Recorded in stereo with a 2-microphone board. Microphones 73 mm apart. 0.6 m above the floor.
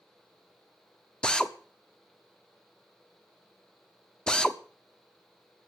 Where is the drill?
10° left (ahead or behind), 0.8 m.